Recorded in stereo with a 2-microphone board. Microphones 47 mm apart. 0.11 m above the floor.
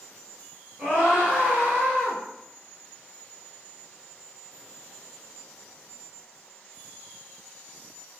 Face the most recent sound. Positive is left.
turn(degrees=-35)  # may be behind; listen again after turning